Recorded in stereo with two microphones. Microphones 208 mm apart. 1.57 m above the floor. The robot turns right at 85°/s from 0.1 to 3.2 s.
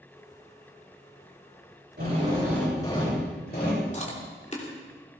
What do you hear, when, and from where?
2.0 s a drill: 55° right, 7 m; by 3.8 s 50° left, 7 m
3.9 s chewing: 35° left (ahead or behind), 3 m